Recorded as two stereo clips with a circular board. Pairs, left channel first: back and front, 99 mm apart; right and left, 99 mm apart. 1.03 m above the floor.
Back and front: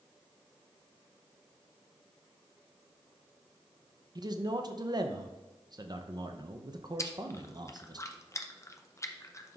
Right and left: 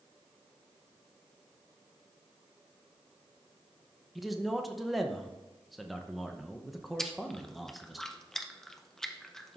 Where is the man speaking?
Straight ahead, 0.6 m.